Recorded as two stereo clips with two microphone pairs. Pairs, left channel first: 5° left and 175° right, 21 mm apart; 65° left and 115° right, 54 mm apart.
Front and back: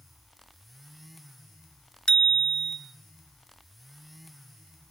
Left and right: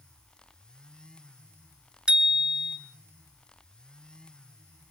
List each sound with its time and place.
2.1 s a bicycle bell: 40° right, 2 m